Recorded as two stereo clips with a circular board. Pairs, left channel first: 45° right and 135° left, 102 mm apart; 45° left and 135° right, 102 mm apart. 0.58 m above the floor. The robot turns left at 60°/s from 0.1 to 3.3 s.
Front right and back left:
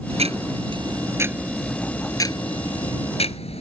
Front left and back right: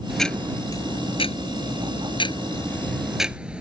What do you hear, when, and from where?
0.1 s ticking: 135° left; by 3.6 s 55° right